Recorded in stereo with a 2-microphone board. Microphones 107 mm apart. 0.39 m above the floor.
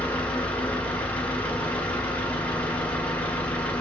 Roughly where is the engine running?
Centre.